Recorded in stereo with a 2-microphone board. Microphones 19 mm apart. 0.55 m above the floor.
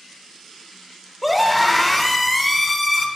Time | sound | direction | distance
1.2 | a scream | 10° right (ahead or behind) | 2 m